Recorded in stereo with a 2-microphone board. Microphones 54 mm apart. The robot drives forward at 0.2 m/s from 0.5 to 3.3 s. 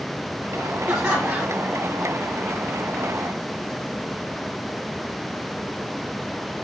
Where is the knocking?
I don't hear knocking.